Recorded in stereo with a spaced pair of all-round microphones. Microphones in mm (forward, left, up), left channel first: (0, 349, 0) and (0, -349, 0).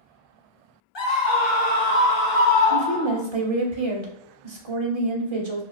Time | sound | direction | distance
0.9 | a scream | 40° left (ahead or behind) | 0.8 m
2.7 | a woman speaking | 45° right (ahead or behind) | 0.7 m